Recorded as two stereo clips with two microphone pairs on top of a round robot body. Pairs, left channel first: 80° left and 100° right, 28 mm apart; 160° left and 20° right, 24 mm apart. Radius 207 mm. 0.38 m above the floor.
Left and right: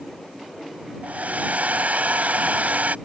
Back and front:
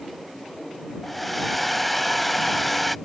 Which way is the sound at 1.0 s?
110° right.